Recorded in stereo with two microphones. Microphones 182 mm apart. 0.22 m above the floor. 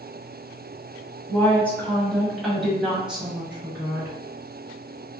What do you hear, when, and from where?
1.3 s a woman speaking: 10° left (ahead or behind), 1.1 m; by 4.2 s 10° right (ahead or behind), 1.4 m